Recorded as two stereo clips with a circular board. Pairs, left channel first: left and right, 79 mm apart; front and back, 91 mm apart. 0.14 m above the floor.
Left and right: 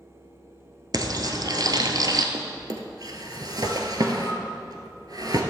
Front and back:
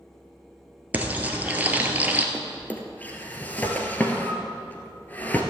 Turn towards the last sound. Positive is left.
turn(degrees=-70)